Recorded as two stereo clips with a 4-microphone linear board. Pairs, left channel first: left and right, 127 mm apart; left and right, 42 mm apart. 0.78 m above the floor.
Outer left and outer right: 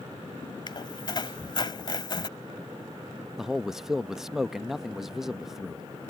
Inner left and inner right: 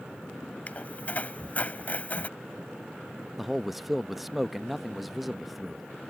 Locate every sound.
0.7 s a squeak: 35° left (ahead or behind)
3.4 s a man speaking: 5° right (ahead or behind)